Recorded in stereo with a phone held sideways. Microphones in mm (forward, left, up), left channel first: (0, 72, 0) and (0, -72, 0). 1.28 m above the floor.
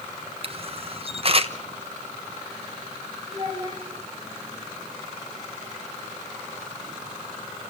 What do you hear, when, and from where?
0.4 s a camera shutter: 45° right (ahead or behind), 1.2 m
3.3 s a child speaking: 35° right (ahead or behind), 5.5 m